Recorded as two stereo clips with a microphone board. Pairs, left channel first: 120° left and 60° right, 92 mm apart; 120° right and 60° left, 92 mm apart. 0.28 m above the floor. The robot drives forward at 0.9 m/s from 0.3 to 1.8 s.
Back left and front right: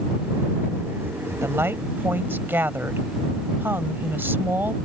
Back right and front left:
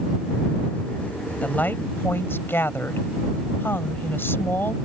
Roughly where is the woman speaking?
Ahead right.